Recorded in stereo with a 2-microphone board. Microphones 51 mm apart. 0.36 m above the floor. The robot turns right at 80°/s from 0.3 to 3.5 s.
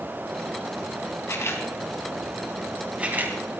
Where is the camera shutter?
60° left (ahead or behind), 3.5 m; by 3.4 s 50° right (ahead or behind), 3.5 m.